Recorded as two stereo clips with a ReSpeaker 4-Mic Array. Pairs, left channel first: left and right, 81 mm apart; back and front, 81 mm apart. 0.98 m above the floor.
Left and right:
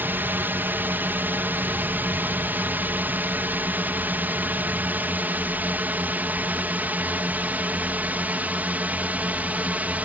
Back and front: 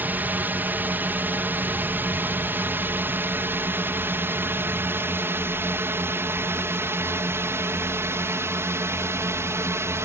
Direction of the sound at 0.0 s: 45° right.